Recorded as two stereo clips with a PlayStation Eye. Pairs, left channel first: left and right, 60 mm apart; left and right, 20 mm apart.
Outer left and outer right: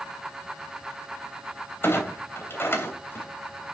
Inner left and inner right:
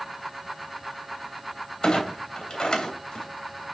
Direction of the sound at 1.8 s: 40° left (ahead or behind).